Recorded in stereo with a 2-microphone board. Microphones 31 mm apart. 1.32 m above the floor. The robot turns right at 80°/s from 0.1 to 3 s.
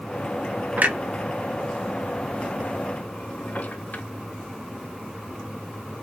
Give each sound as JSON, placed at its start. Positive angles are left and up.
{"t": 0.8, "sound": "a clunk", "side_deg": -55, "distance_m": 0.9}